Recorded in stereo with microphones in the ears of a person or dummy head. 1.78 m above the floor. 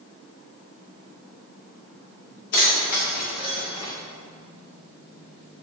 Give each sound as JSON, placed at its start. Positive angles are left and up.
{"t": 2.5, "sound": "keys jangling", "side_deg": 50, "distance_m": 1.4}